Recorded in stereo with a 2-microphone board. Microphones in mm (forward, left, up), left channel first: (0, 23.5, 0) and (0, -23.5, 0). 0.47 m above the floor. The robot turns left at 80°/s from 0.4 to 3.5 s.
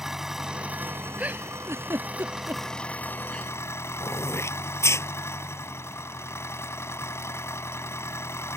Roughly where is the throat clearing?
Left.